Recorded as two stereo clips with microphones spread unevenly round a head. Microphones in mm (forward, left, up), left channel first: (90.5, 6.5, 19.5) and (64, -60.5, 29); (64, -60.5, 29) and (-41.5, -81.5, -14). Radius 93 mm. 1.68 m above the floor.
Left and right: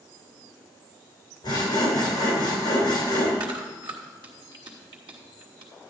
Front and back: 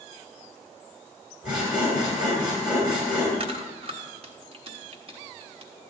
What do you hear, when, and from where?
1.4 s sawing: 100° left, 3.5 m
3.4 s chewing: 135° right, 1.4 m